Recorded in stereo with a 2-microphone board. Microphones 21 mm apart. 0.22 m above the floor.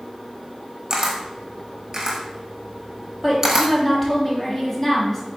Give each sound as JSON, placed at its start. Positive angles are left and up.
{"t": 0.9, "sound": "a camera shutter", "side_deg": -25, "distance_m": 1.1}
{"t": 3.2, "sound": "a woman speaking", "side_deg": 15, "distance_m": 1.3}